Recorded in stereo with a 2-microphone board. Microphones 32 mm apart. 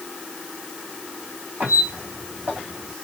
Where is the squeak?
80° right, 2 m.